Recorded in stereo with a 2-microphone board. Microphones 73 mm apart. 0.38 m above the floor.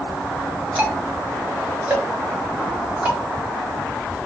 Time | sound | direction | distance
0.8 | ticking | 20° right (ahead or behind) | 2 m